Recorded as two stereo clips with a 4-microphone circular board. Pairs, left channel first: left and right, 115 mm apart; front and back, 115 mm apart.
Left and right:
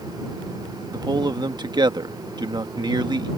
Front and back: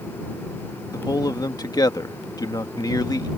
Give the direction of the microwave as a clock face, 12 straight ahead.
No microwave in this recording.